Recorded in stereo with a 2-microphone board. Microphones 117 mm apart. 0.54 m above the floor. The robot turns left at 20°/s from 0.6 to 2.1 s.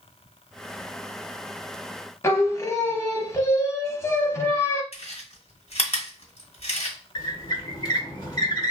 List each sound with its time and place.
2.2 s singing: 25° left (ahead or behind), 0.7 m
4.9 s chewing: 65° left (ahead or behind), 1.2 m
7.2 s a squeak: 35° left (ahead or behind), 1.1 m